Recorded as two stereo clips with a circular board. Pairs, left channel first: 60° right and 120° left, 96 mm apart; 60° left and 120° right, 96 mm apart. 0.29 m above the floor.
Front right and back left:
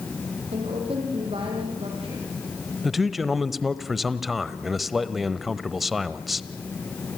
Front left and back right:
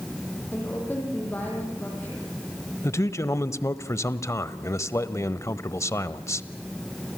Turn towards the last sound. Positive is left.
turn(degrees=35)